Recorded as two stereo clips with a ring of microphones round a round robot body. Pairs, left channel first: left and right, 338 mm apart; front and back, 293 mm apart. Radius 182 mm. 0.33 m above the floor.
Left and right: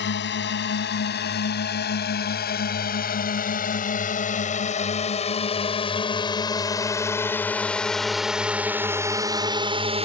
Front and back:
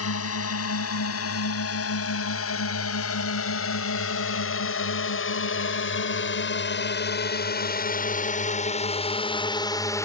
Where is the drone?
35° left; by 10.1 s 60° right.